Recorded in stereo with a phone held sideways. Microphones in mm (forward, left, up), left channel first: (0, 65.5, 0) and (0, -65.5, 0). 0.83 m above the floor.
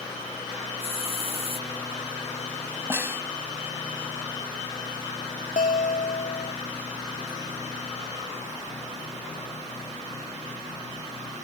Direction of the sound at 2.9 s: 15° right (ahead or behind).